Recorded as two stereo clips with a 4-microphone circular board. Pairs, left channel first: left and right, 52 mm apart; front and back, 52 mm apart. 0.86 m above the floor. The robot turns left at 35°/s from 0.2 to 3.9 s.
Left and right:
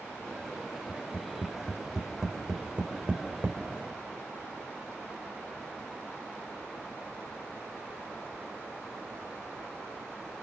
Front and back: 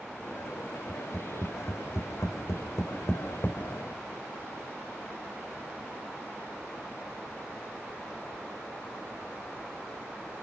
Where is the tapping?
40° left, 4 m; by 3.6 s 55° right, 4 m.